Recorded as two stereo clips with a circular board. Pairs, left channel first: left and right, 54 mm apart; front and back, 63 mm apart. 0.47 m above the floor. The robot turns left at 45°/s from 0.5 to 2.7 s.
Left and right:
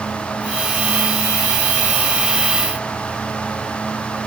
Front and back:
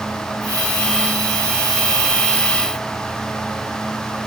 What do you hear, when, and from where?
Only background noise.